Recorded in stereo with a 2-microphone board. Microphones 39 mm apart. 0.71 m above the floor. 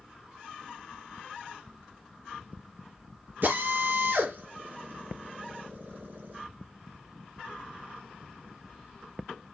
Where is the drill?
55° right (ahead or behind), 8 m.